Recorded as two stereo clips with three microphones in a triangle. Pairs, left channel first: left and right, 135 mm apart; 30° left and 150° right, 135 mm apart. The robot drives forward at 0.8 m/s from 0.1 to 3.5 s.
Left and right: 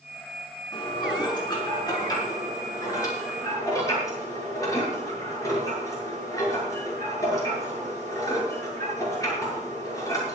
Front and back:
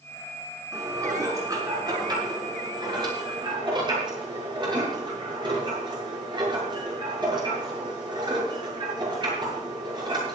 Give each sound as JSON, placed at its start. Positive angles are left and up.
{"t": 0.7, "sound": "dishes clattering", "azimuth_deg": 145, "distance_m": 5.0}